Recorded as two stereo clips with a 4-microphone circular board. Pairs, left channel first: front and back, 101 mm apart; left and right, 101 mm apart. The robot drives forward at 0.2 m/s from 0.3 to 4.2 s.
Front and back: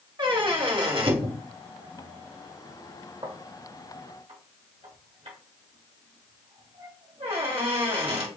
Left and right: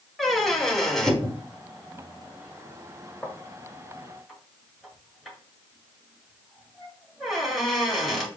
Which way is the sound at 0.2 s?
Straight behind.